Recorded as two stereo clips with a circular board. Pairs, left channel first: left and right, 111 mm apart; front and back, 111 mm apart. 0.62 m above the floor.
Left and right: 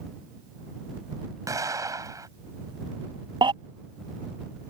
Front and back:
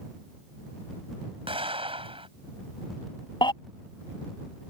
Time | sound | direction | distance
1.5 | an explosion | 150° right | ?
3.4 | a baby crying | 45° right | ?